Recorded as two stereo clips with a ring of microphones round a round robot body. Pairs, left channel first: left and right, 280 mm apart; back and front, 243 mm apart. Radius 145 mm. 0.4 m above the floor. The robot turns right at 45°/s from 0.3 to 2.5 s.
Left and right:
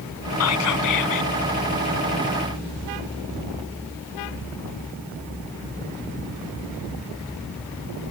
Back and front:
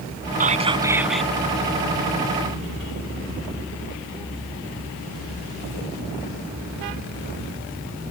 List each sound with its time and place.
0.4 s whispering: 55° left; by 1.3 s 95° left